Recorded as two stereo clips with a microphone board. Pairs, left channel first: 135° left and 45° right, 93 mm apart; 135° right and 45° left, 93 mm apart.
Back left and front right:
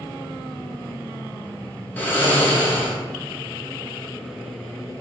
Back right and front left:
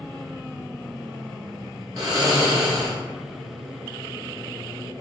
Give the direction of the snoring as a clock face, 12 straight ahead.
10 o'clock.